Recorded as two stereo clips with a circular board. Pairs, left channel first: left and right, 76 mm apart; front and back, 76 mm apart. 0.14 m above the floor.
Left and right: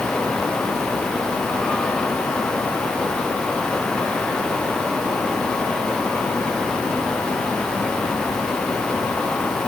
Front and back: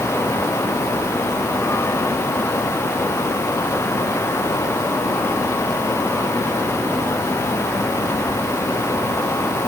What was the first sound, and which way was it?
Only background noise.